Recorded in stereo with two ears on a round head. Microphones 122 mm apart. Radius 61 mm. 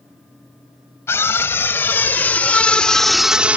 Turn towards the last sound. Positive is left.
turn(degrees=-10)  # may be behind; listen again after turning